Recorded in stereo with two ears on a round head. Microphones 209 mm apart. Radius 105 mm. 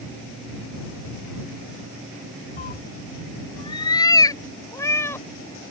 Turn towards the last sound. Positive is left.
turn(degrees=10)  # may be behind; listen again after turning